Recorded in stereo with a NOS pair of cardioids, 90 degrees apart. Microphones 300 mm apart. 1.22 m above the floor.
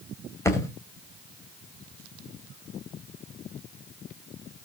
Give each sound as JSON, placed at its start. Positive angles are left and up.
{"t": 0.5, "sound": "a thud", "azimuth_deg": 10, "distance_m": 3.0}